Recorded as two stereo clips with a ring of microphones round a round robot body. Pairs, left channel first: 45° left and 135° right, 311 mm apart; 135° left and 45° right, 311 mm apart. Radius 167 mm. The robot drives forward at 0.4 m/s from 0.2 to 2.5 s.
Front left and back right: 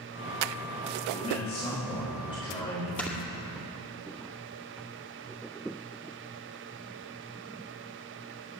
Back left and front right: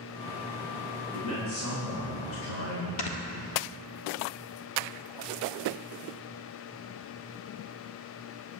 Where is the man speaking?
115° left, 4.5 m; by 2.9 s 120° left, 5 m.